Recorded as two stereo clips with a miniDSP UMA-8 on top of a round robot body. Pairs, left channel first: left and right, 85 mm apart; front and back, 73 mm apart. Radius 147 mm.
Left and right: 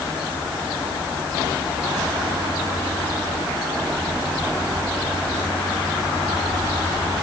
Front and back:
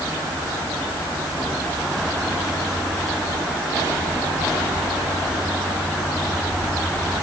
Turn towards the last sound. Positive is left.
No sound to turn to.